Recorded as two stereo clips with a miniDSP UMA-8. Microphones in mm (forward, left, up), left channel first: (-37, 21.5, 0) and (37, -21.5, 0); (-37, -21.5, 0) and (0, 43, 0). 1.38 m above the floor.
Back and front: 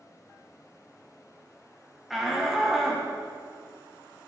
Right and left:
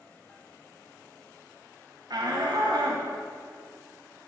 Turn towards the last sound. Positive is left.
turn(degrees=60)